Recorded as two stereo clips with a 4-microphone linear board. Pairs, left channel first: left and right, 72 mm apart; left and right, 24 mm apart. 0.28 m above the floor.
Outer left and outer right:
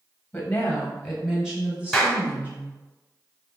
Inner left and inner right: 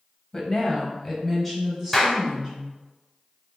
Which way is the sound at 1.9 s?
5° left (ahead or behind).